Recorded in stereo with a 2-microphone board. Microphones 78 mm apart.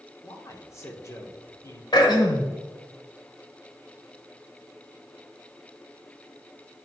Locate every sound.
0.2 s a man speaking: 35° left (ahead or behind), 1.4 m
1.9 s throat clearing: 65° left (ahead or behind), 1.3 m